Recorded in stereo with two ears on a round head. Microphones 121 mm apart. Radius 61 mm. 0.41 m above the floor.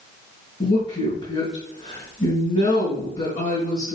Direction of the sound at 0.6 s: 55° left (ahead or behind).